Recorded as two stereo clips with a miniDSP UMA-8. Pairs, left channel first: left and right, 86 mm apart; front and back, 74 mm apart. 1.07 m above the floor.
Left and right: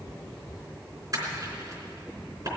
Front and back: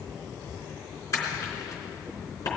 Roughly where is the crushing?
Ahead right.